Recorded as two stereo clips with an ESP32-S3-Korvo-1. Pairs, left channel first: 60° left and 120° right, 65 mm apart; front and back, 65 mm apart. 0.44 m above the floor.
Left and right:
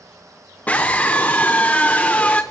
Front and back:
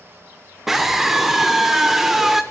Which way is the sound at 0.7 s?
100° left.